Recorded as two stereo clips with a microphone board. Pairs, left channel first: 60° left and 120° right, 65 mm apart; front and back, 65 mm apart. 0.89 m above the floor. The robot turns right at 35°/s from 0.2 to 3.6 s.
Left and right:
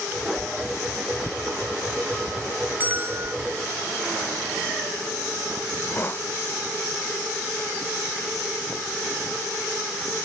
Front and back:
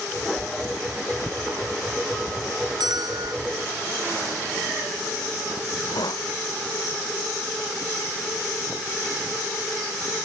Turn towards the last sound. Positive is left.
turn(degrees=5)